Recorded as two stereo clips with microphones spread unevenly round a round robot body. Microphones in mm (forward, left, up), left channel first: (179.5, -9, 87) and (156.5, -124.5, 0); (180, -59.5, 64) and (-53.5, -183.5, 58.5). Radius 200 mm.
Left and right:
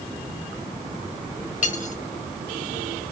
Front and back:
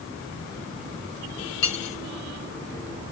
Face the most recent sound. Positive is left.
turn(degrees=35)